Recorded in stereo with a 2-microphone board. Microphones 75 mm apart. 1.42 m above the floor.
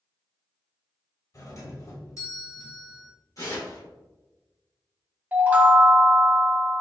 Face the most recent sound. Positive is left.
turn(degrees=-20)  # may be behind; listen again after turning